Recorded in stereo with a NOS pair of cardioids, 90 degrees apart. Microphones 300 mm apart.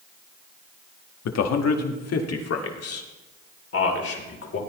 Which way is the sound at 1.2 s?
60° left.